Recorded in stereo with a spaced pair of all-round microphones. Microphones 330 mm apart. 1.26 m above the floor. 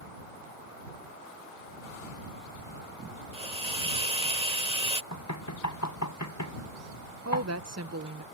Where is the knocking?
55° left (ahead or behind).